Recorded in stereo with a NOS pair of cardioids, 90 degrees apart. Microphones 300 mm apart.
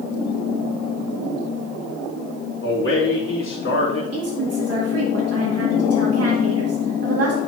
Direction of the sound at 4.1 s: 55° right.